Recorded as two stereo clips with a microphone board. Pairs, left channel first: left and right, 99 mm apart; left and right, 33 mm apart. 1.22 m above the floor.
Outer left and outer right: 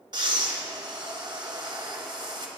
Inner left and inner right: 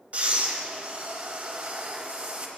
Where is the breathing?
45° right (ahead or behind), 0.8 m.